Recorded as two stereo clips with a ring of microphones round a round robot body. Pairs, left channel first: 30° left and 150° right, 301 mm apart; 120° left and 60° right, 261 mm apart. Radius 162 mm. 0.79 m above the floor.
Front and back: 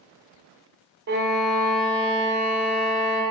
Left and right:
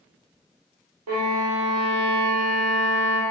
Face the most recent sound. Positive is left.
turn(degrees=-95)